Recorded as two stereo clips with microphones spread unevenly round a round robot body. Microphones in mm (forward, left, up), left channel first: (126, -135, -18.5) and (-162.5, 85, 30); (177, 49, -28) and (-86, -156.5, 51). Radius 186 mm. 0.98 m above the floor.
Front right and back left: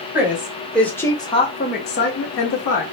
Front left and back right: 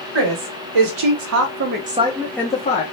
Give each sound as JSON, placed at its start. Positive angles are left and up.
{"t": 0.1, "sound": "a woman speaking", "azimuth_deg": -130, "distance_m": 1.1}